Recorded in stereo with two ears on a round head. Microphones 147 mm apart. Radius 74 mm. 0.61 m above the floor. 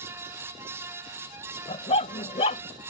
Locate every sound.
1.7 s a dog barking: 35° left (ahead or behind)